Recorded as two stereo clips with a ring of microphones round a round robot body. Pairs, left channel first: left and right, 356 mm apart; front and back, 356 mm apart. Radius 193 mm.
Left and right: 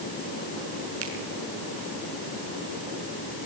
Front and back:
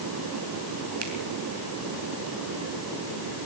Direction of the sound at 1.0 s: 150° right.